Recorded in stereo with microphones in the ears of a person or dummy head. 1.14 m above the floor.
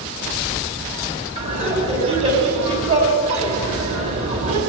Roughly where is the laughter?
Right.